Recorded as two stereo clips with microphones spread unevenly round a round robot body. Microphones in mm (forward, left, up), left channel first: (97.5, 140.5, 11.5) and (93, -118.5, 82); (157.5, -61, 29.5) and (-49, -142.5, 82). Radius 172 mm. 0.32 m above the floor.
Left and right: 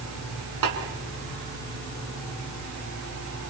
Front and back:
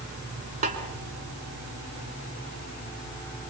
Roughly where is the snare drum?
Right.